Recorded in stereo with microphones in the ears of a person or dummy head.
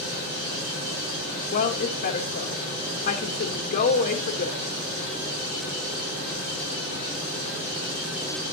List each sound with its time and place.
1.5 s a woman speaking: 50° left (ahead or behind), 1.2 m